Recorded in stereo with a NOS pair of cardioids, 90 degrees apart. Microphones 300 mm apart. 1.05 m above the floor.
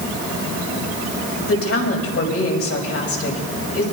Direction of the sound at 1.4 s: 50° left.